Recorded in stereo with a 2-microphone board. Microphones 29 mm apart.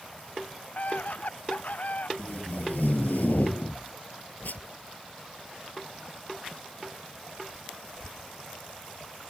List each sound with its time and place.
0.8 s a scream: 55° left (ahead or behind)
2.2 s tape being pulled: 75° left (ahead or behind)